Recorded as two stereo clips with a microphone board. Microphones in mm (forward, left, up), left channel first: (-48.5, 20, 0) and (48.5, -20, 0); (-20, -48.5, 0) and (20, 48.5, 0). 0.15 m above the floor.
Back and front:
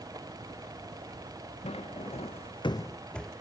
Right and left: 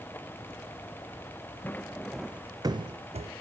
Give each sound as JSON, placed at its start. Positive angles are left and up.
{"t": 1.6, "sound": "footsteps", "azimuth_deg": 175, "distance_m": 0.9}